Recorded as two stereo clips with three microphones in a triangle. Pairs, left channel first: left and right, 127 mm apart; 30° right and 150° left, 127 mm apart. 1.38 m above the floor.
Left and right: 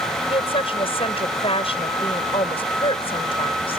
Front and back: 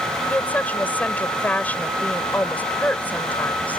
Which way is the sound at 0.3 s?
50° left.